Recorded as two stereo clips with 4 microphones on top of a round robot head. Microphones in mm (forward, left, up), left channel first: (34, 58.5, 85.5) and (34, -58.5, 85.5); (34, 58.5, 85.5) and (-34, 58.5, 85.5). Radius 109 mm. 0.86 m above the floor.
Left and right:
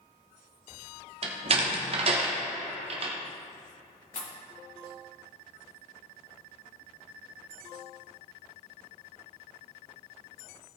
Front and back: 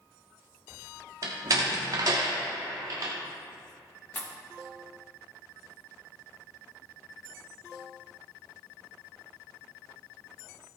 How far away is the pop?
About 1.7 m.